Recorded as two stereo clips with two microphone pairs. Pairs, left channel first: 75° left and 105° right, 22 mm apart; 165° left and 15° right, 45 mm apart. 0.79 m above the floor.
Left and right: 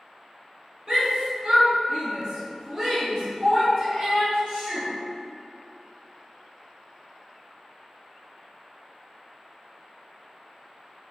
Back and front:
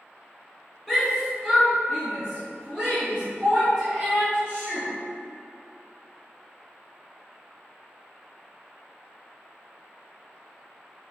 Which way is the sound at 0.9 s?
105° right.